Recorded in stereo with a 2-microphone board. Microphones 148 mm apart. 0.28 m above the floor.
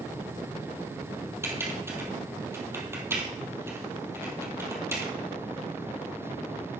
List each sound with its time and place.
1.4 s typing on a keyboard: 15° right (ahead or behind), 2 m